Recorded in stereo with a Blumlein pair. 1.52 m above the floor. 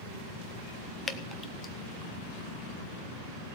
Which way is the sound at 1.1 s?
10° left.